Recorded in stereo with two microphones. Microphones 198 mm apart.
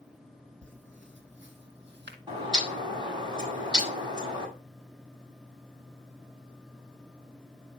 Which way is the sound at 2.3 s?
25° right (ahead or behind).